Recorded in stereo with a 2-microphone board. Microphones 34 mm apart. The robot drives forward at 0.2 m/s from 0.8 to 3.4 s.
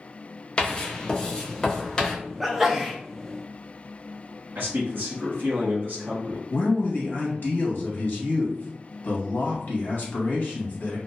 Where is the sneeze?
5° right (ahead or behind), 0.6 m.